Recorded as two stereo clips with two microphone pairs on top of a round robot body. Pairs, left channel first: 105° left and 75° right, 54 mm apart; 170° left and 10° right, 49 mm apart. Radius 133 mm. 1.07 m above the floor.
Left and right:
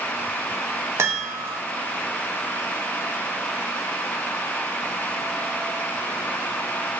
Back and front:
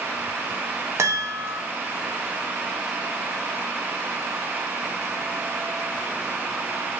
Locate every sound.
1.0 s a chime: 35° right, 1.1 m